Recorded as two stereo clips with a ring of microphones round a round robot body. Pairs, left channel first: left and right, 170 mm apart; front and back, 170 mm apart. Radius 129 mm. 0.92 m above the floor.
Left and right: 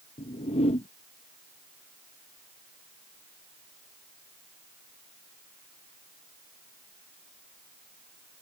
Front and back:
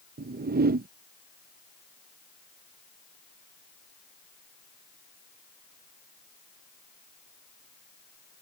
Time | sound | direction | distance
0.2 | a whoosh | 150° left | ?